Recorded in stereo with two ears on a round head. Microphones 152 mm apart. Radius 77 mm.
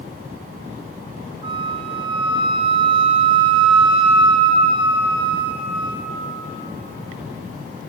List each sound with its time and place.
1.4 s a flute: 30° right (ahead or behind), 0.5 m